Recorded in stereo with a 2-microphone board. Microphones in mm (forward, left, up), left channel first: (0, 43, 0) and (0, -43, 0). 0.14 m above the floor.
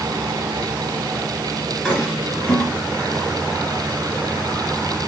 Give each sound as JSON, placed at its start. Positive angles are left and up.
{"t": 1.9, "sound": "a toilet flushing", "side_deg": 5, "distance_m": 1.8}